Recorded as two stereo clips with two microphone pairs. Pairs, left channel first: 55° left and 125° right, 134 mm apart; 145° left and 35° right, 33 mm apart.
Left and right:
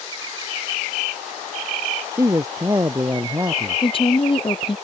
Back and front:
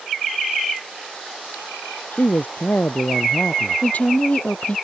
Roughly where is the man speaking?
Behind.